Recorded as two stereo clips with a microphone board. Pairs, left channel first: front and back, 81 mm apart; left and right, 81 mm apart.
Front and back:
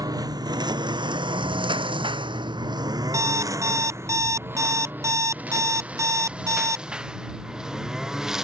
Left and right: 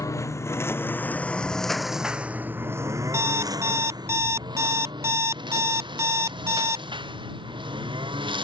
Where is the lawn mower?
140° left; by 8.4 s 95° right.